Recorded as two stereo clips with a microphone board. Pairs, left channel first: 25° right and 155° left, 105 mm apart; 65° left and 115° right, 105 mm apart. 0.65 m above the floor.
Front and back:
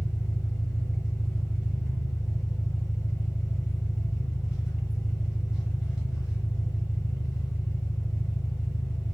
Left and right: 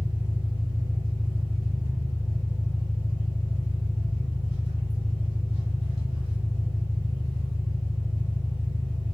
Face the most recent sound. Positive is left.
turn(degrees=75)